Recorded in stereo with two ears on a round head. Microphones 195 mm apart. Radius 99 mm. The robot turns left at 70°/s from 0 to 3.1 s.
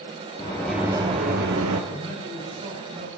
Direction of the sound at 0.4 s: 20° left.